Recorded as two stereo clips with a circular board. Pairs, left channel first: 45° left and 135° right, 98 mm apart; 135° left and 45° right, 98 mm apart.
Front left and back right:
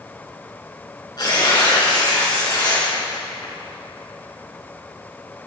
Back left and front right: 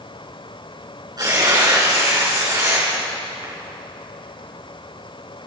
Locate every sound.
1.2 s tearing paper: straight ahead, 5.5 m